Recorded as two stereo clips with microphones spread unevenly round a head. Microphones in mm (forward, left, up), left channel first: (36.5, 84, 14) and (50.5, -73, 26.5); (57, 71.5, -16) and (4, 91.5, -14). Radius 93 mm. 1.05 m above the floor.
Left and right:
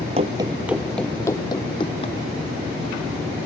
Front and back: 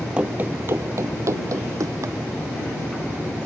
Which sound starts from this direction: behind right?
Running footsteps, at 0.2 s.